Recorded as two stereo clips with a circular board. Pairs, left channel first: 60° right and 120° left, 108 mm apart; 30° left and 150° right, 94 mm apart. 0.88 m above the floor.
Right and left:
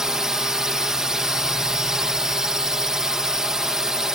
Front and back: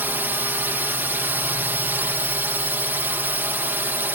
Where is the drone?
165° right.